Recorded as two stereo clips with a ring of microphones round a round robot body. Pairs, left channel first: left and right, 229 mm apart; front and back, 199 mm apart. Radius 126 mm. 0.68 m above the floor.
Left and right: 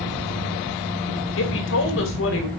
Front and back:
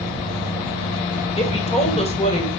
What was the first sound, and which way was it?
A woman speaking, 60° left.